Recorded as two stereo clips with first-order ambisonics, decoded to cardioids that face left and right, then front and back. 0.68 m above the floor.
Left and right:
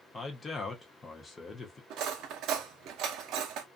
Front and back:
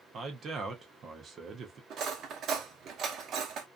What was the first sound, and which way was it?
A man speaking, 150° left.